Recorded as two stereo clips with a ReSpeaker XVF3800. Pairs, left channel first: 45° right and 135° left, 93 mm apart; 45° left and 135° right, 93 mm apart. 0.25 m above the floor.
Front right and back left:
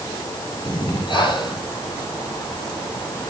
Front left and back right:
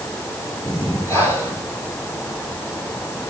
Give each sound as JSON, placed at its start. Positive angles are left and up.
{"t": 0.7, "sound": "breathing", "azimuth_deg": -15, "distance_m": 6.0}